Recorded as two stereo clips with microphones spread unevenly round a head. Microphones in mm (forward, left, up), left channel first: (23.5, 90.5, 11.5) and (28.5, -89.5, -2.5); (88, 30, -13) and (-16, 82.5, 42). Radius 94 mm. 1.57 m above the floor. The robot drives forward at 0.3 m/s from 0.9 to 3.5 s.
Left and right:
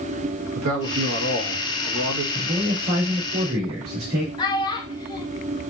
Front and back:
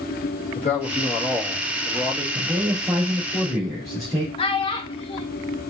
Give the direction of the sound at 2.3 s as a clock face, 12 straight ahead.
4 o'clock.